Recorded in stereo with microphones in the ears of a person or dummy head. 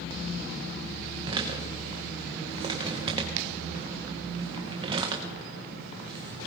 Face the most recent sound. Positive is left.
turn(degrees=-30)  # may be behind; listen again after turning